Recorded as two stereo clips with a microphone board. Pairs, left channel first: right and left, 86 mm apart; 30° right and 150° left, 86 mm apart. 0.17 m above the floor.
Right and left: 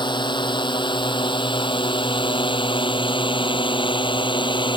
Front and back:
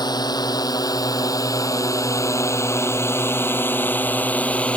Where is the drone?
65° right; by 4.8 s 105° right.